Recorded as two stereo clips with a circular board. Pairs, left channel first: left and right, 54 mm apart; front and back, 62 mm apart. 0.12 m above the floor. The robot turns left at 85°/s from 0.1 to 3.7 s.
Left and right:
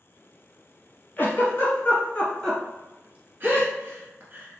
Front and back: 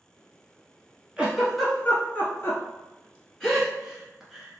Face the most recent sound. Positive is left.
turn(degrees=-100)